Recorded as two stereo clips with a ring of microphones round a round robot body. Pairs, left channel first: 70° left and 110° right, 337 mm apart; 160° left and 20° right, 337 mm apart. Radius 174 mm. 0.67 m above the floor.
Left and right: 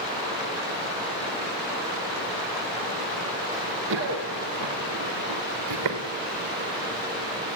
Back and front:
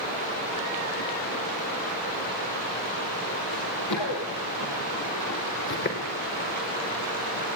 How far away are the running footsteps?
About 6.5 m.